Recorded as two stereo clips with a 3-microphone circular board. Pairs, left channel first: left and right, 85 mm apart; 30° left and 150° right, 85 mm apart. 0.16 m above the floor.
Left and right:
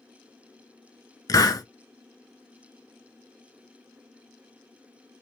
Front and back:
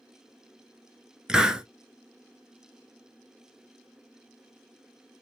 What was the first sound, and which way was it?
A hiss, 130° left.